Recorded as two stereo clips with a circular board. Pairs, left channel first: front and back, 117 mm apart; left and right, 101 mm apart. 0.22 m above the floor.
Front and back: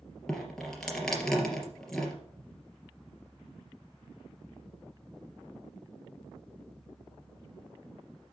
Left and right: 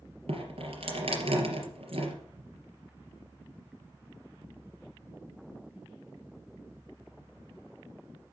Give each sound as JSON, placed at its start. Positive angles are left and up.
{"t": 0.3, "sound": "dripping", "azimuth_deg": -85, "distance_m": 3.0}